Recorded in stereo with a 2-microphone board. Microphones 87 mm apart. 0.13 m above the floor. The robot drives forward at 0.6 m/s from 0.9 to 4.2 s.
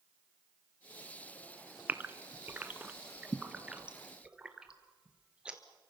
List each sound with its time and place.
1.9 s a gasp: 20° right (ahead or behind), 1.2 m; by 5.6 s 10° right (ahead or behind), 2.0 m